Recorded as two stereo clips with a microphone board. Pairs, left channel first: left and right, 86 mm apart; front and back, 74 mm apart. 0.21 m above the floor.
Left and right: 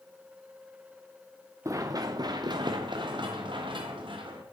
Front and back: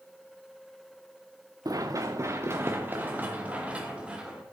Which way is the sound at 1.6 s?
140° right.